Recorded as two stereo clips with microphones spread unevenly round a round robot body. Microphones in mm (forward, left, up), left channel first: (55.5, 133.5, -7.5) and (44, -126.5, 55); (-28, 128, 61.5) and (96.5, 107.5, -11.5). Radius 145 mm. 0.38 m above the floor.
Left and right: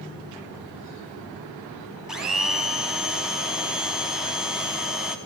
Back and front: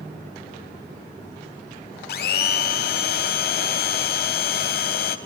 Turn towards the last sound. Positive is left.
turn(degrees=180)